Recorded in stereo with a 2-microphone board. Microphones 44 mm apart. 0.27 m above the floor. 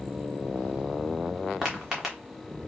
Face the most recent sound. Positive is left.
turn(degrees=-5)  # may be behind; listen again after turning